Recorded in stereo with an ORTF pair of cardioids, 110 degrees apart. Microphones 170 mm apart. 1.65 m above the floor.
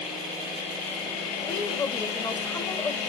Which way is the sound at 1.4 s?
25° left.